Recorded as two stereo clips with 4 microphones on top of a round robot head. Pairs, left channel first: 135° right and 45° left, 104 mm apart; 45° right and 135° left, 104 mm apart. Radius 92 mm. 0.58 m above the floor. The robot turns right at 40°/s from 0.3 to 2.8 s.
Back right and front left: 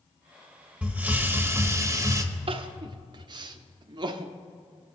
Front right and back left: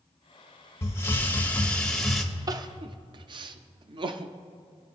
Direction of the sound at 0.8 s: 15° right.